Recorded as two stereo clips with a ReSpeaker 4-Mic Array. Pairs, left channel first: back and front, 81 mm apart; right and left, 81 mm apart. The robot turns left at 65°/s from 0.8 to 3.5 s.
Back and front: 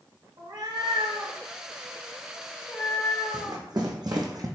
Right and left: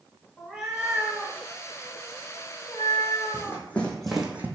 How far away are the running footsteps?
About 1.1 m.